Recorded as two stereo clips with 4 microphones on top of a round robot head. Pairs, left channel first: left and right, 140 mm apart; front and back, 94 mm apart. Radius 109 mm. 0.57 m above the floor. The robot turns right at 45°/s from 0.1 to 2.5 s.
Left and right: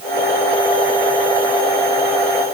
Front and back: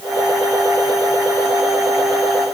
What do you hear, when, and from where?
Only background noise.